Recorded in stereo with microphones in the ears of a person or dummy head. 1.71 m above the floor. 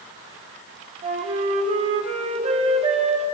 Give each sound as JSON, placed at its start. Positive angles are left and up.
{"t": 1.0, "sound": "a flute", "side_deg": -30, "distance_m": 1.8}